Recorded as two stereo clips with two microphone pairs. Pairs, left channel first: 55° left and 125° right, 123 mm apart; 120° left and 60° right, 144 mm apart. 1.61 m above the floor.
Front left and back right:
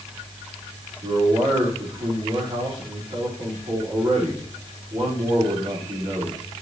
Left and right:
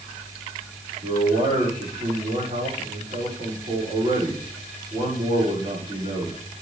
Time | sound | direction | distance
1.0 | a man speaking | 90° right | 5 m